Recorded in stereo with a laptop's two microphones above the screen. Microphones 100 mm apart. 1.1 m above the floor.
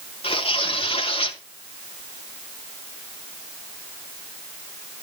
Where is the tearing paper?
70° left (ahead or behind), 3 m.